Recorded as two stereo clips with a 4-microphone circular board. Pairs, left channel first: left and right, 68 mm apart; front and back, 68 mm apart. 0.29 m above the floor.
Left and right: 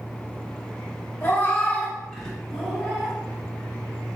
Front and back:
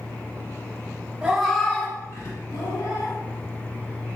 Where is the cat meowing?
120° left, 0.5 m; by 3.1 s 5° right, 1.1 m.